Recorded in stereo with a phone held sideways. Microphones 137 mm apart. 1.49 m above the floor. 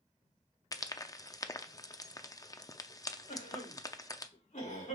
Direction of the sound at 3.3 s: 70° left (ahead or behind).